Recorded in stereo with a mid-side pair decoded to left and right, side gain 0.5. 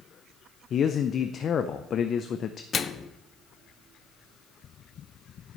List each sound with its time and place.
0.7 s a man speaking: 50° left, 0.6 m
2.7 s a microwave: 45° left, 0.5 m